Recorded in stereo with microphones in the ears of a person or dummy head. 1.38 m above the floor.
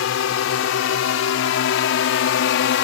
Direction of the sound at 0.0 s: 65° left (ahead or behind).